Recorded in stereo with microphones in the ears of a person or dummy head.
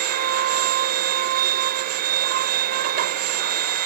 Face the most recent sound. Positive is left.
turn(degrees=-50)  # may be behind; listen again after turning